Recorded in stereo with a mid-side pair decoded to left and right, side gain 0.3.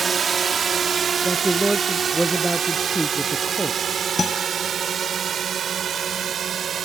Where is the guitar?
45° left.